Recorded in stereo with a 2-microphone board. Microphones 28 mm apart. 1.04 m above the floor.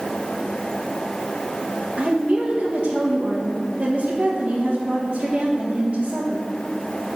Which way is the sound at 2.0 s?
40° right (ahead or behind).